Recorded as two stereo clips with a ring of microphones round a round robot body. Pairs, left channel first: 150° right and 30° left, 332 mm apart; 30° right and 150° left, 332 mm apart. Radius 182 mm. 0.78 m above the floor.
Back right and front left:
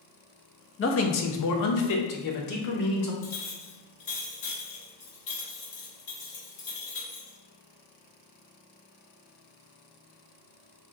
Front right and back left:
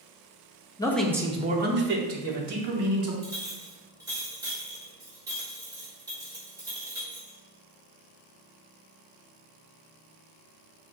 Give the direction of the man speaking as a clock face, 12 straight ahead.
4 o'clock.